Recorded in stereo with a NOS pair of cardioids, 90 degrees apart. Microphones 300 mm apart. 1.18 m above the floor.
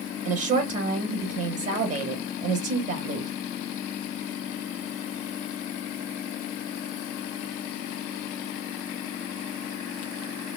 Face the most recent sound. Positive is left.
turn(degrees=-55)